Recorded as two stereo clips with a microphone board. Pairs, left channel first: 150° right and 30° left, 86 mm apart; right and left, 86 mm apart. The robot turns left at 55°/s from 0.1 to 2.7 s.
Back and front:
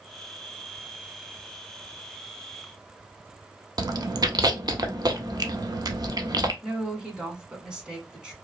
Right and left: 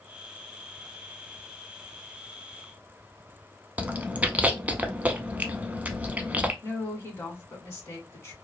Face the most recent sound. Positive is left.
turn(degrees=-45)